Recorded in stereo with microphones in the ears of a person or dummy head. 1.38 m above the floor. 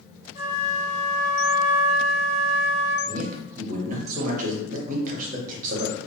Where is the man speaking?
50° right (ahead or behind), 0.8 m.